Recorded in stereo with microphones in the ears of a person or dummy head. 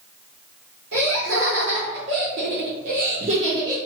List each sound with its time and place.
0.9 s laughter: 55° right (ahead or behind), 1.4 m; by 3.8 s 15° right (ahead or behind), 0.7 m